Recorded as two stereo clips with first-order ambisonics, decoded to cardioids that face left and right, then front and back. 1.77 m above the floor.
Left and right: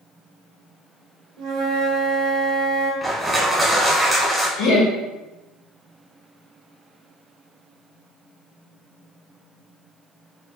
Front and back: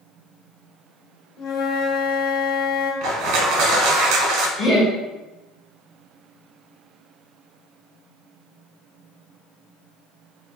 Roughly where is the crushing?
Behind.